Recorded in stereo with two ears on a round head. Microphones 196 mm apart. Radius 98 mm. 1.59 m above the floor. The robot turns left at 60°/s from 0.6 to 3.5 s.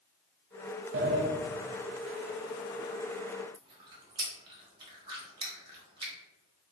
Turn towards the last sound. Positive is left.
turn(degrees=-25)  # may be behind; listen again after turning